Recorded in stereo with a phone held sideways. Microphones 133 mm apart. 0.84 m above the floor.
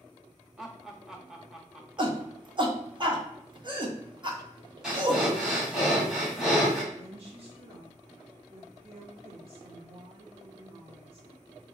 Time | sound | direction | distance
0.6 | laughter | 5° right (ahead or behind) | 0.9 m
2.0 | a shout | 35° right (ahead or behind) | 1.1 m
4.8 | breathing | 5° right (ahead or behind) | 1.7 m
6.9 | a woman speaking | 45° right (ahead or behind) | 2.5 m